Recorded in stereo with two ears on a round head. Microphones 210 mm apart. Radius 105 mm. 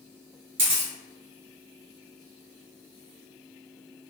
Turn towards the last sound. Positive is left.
turn(degrees=-25)  # may be behind; listen again after turning